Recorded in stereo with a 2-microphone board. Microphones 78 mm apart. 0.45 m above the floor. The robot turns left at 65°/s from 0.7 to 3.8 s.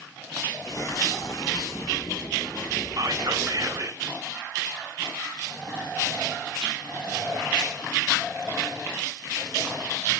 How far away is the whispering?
About 2.5 m.